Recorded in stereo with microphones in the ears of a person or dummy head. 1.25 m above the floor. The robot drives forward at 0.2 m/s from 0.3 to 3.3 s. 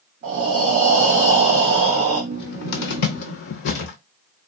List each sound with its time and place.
0.2 s breathing: 45° right (ahead or behind), 1.3 m; by 2.2 s 35° right (ahead or behind), 1.6 m
2.3 s a cupboard door: 60° left (ahead or behind), 0.7 m